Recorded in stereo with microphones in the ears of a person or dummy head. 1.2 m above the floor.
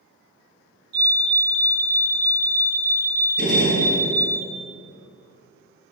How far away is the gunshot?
About 3 m.